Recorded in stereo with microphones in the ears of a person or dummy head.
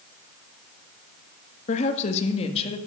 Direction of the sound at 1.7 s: 40° left (ahead or behind).